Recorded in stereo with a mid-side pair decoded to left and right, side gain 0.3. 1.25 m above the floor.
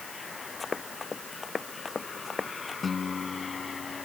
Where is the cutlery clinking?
No cutlery clinking in this recording.